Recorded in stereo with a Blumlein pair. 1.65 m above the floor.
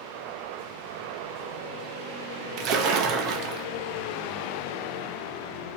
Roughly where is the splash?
Ahead right.